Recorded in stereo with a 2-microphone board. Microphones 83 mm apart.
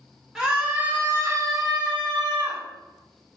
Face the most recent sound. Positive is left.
turn(degrees=-70)  # may be behind; listen again after turning